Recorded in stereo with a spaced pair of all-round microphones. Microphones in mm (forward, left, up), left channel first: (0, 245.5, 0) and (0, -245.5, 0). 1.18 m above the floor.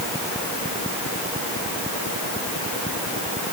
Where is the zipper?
I don't hear a zipper.